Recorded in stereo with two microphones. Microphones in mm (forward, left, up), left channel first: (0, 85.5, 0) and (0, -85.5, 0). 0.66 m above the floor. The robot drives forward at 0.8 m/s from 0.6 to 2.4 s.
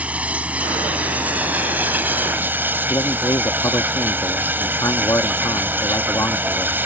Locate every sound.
0.0 s running water: 10° right (ahead or behind)
2.9 s a man speaking: 20° left (ahead or behind)